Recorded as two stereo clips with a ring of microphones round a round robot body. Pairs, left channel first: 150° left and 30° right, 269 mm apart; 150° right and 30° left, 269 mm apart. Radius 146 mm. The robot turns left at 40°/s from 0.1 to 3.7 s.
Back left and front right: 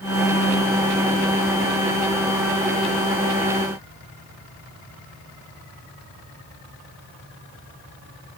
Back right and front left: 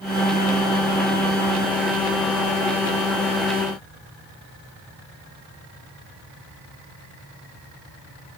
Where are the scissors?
I don't hear scissors.